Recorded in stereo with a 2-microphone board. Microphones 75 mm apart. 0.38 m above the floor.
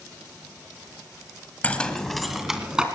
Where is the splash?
No splash in this recording.